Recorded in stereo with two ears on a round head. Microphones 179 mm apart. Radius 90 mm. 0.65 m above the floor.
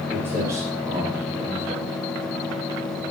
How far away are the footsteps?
About 7 m.